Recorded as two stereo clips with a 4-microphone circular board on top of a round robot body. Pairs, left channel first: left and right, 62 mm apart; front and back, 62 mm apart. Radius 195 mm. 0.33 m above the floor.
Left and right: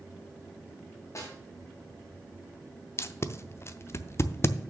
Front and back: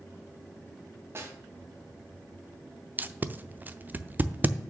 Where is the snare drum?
130° left, 2.5 m.